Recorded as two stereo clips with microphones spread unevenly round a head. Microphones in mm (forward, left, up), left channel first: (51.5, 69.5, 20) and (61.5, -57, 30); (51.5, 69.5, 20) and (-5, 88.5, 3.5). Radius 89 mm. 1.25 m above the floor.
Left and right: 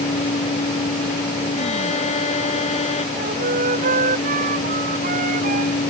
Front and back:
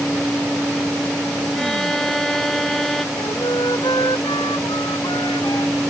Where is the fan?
65° left.